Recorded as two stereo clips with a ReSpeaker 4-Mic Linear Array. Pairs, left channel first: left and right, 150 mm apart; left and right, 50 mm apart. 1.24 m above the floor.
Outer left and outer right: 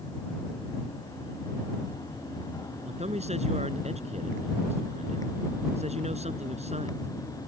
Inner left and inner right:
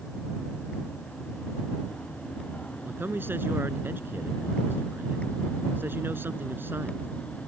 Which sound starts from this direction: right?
A man speaking, at 2.8 s.